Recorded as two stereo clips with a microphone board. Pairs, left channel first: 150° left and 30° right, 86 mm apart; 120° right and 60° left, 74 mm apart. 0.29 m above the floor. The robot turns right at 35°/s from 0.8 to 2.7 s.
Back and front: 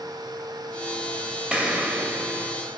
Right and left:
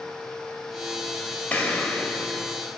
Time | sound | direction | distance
1.5 | an explosion | 90° right | 0.6 m